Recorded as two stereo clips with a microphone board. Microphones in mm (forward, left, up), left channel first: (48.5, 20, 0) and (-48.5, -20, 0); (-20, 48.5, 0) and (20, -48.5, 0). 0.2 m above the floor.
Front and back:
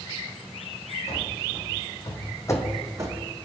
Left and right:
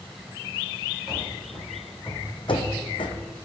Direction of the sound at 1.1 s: 25° left.